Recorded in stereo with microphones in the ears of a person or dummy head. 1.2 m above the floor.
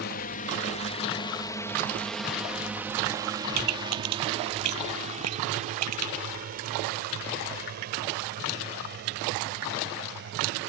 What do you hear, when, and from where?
0.0 s a drone: 45° left (ahead or behind); by 10.7 s 55° right (ahead or behind)
3.5 s a pop: 85° right